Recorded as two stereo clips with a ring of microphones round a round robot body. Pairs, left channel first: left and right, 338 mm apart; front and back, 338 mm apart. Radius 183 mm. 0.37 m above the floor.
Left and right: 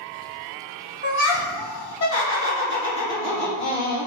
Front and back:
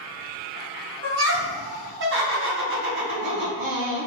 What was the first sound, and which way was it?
Laughter, 145° left.